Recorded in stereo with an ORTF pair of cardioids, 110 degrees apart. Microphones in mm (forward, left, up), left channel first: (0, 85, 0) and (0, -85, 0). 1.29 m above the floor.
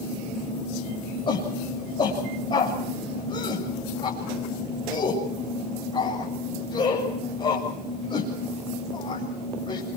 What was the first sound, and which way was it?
A shout, 30° left.